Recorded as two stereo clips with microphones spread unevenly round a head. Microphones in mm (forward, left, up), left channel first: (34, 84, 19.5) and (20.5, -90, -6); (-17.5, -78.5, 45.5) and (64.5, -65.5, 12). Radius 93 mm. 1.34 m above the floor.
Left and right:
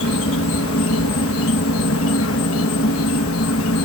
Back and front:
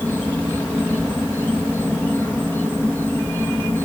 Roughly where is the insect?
Left.